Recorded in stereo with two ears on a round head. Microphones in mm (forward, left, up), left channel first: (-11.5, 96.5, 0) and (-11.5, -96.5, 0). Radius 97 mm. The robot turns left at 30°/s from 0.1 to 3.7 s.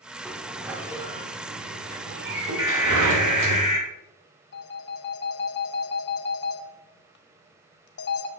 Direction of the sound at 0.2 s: 5° left (ahead or behind).